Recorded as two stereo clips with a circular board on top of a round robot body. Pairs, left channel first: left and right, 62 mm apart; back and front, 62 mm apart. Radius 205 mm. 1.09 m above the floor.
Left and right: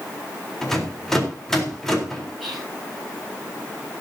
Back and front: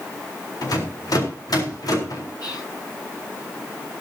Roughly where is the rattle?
Behind.